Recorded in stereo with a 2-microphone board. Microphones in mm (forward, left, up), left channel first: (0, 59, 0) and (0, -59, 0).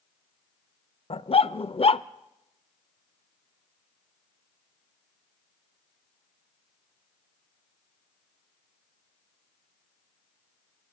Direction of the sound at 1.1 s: 55° left (ahead or behind).